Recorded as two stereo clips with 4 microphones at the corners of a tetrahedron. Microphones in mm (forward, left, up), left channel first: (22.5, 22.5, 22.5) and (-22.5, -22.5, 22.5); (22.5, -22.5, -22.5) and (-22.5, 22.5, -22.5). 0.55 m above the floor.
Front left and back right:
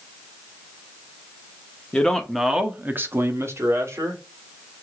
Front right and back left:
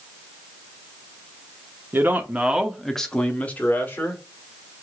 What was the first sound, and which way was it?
A man speaking, 110° left.